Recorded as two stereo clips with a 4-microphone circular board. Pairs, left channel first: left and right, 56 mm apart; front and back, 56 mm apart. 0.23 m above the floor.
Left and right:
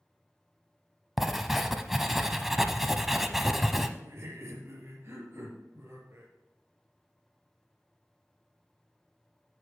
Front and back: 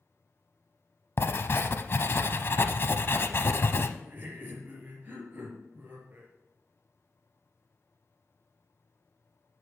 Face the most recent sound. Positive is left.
turn(degrees=-125)